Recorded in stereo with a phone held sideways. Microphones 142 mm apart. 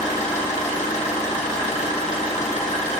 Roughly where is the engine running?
Left.